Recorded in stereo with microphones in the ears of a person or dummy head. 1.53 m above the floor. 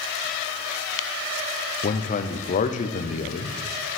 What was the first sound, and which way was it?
A man speaking, 40° left (ahead or behind).